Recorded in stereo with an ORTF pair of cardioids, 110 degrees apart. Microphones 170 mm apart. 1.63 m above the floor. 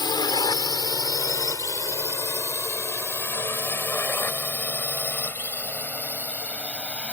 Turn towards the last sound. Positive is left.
turn(degrees=5)